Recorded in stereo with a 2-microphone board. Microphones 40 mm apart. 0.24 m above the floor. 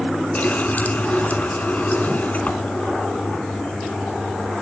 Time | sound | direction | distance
0.3 | a running tap | 45° left (ahead or behind) | 1.5 m